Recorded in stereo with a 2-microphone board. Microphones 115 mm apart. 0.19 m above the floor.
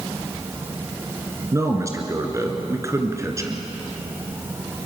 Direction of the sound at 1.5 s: 25° right (ahead or behind).